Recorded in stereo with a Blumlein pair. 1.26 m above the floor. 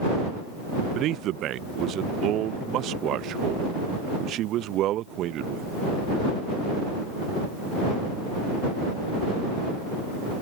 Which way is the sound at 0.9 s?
35° right.